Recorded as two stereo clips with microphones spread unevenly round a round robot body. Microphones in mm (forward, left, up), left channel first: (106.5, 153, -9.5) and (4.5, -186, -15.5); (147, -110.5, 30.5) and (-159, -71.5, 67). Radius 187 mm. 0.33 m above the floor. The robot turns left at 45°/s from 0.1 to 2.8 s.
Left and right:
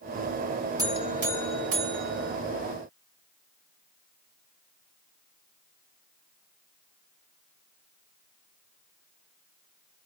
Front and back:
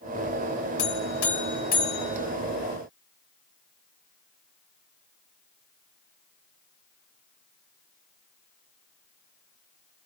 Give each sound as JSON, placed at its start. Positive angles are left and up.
{"t": 0.8, "sound": "a buzzer", "azimuth_deg": -25, "distance_m": 1.1}